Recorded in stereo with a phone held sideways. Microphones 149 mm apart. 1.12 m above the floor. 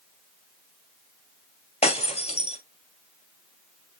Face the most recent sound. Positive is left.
turn(degrees=45)  # may be behind; listen again after turning